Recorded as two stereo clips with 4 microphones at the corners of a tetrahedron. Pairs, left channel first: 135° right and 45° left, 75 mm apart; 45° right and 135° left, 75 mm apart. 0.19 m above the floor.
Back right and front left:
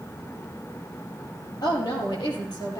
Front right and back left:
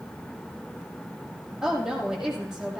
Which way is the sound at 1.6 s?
145° right.